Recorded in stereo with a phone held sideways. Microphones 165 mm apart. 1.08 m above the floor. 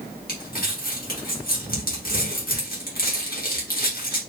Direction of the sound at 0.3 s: 65° left (ahead or behind).